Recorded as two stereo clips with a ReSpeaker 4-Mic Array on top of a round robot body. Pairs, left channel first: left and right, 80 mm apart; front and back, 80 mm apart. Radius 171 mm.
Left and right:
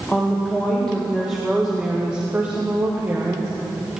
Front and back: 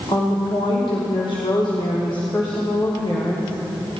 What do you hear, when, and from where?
0.1 s a woman speaking: 20° left, 3 m; by 3.5 s 35° right, 3 m